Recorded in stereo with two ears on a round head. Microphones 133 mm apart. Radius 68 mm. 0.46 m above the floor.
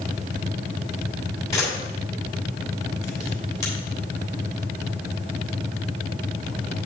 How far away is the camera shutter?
About 3 m.